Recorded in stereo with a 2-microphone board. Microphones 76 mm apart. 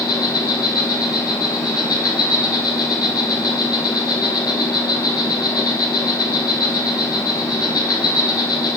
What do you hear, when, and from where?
0.0 s an insect: 75° left (ahead or behind), 0.7 m